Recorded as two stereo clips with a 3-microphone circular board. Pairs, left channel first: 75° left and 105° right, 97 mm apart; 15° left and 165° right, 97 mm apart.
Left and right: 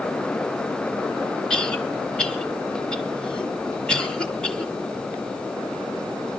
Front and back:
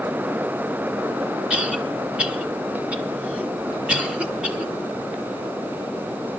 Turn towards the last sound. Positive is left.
turn(degrees=135)